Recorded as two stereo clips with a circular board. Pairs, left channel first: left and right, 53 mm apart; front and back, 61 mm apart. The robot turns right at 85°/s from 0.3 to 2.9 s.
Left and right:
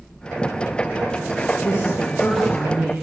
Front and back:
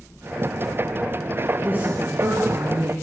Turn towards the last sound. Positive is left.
turn(degrees=-140)